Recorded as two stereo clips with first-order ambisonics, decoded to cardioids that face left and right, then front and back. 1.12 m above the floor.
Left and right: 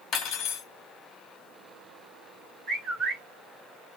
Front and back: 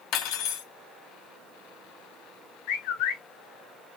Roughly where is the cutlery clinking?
Ahead left.